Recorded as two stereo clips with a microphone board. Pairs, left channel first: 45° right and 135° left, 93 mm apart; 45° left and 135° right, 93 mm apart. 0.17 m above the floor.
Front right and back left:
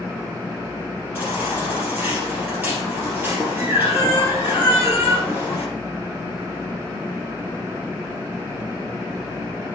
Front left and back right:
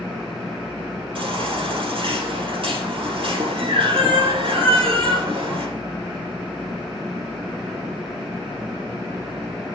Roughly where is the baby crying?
Behind right.